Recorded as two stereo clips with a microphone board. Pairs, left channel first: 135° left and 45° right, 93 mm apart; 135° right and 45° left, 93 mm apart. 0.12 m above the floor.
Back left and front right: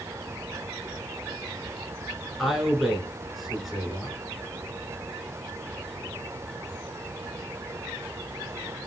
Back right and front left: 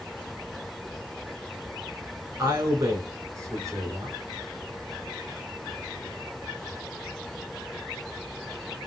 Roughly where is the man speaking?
Ahead left.